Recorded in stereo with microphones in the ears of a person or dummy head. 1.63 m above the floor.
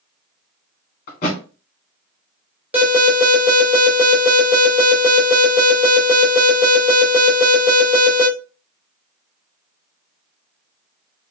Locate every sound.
1.1 s a thud: 30° left (ahead or behind), 1.2 m
2.7 s an alarm: 10° right (ahead or behind), 3 m